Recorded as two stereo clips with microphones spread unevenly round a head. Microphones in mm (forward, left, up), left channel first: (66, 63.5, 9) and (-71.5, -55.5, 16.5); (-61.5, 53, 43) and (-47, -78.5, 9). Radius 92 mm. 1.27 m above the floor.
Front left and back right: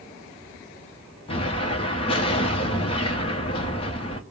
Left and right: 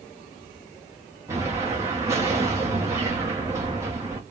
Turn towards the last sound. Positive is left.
turn(degrees=-20)